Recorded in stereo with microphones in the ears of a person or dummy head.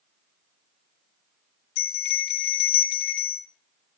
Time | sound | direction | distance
1.8 | a bell | 60° left (ahead or behind) | 0.7 m